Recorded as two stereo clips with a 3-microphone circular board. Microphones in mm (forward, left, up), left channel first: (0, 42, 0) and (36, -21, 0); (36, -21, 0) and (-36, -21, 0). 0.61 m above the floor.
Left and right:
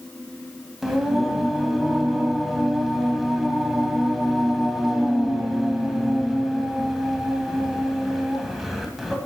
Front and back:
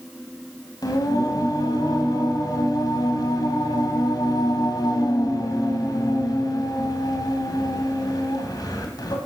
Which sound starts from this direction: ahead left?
Singing, at 0.8 s.